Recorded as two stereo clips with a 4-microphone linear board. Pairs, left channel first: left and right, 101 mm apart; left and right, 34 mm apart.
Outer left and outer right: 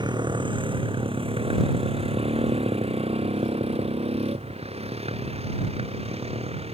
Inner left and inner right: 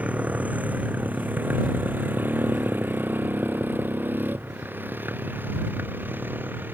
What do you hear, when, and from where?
0.0 s a motorcycle: 50° right (ahead or behind); by 6.8 s 80° right